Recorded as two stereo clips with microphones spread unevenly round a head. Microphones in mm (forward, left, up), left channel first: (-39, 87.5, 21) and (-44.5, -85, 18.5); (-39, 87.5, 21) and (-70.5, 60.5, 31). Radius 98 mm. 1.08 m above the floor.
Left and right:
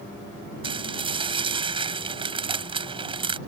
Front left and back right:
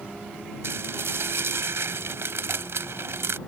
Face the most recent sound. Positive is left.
turn(degrees=-155)